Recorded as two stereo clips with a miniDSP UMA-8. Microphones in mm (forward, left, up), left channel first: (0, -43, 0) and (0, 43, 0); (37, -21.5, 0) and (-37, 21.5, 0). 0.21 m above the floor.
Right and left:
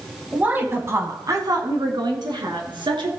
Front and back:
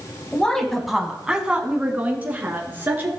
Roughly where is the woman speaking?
Ahead left.